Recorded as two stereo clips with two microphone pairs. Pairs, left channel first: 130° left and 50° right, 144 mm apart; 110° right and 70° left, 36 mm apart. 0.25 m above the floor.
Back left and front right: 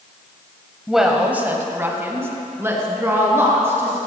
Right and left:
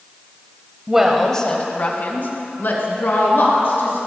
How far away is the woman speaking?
About 1.2 m.